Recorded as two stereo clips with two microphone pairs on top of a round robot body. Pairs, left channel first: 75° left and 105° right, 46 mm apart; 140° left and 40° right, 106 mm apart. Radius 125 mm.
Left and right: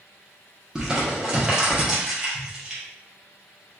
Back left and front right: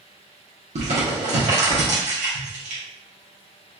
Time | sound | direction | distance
0.8 | crumpling | 25° right | 1.0 m